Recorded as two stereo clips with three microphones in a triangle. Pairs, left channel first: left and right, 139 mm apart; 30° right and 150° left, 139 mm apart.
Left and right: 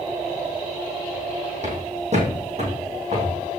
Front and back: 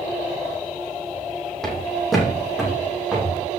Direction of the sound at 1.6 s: 115° right.